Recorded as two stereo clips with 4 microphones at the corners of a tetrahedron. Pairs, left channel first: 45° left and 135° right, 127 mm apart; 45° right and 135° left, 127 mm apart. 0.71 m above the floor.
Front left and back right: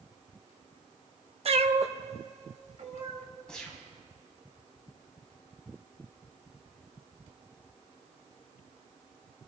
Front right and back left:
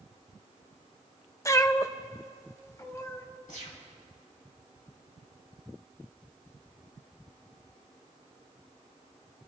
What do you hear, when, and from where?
1.4 s a cat meowing: 110° right, 0.5 m
3.5 s a gunshot: 40° right, 3 m